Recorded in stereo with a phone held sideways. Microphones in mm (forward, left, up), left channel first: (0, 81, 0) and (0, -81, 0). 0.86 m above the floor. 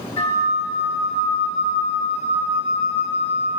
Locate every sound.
0.2 s a flute: 40° left (ahead or behind), 1.3 m